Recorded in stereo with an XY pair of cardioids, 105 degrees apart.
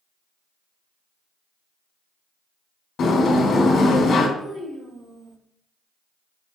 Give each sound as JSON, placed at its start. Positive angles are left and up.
{"t": 3.0, "sound": "a sliding door", "azimuth_deg": 60, "distance_m": 1.5}
{"t": 4.4, "sound": "a child speaking", "azimuth_deg": -65, "distance_m": 2.0}